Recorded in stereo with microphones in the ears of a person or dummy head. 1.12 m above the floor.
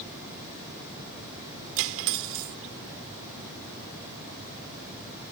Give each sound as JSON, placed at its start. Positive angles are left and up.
{"t": 1.8, "sound": "cutlery clinking", "side_deg": -70}